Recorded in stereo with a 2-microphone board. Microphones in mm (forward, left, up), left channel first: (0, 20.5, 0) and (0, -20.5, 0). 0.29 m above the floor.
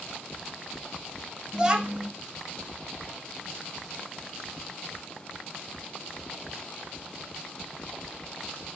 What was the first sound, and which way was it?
A child speaking, 25° right (ahead or behind).